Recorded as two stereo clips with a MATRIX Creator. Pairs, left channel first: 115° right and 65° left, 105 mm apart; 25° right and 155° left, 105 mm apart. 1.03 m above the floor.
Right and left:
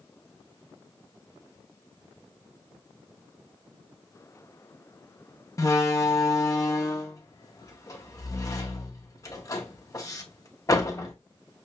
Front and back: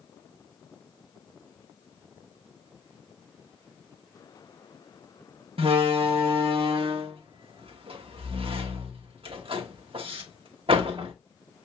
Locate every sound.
5.6 s a door slam: 170° right, 0.9 m